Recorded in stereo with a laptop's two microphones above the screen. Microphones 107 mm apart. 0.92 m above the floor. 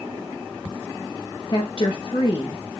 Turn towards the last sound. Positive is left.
turn(degrees=50)  # may be behind; listen again after turning